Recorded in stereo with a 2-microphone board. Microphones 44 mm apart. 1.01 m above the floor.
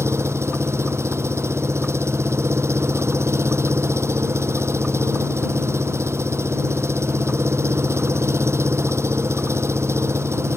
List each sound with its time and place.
0.0 s an engine running: 80° right